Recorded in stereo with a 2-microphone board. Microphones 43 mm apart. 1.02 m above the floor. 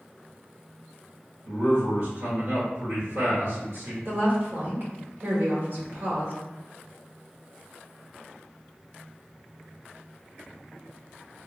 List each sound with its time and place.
1.4 s a man speaking: 65° right (ahead or behind), 1.7 m
4.0 s a woman speaking: 55° right (ahead or behind), 1.2 m